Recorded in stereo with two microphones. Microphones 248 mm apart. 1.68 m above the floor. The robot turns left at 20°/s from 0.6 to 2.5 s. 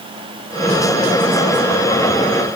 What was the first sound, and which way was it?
Only background noise.